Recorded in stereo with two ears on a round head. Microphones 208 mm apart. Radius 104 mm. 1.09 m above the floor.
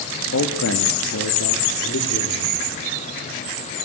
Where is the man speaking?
60° left (ahead or behind), 1.8 m; by 2.5 s 65° left (ahead or behind), 4 m.